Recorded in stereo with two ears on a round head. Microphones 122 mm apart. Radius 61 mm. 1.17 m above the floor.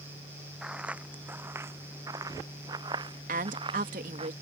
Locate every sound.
0.6 s footsteps: 5° right (ahead or behind); by 4.3 s 40° right (ahead or behind)
3.3 s a woman speaking: 60° right (ahead or behind)